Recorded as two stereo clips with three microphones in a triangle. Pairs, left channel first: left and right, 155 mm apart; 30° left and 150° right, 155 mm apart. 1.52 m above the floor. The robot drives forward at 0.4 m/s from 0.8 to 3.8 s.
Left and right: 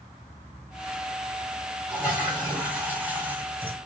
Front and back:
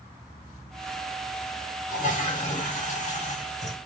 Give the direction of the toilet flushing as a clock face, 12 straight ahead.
12 o'clock.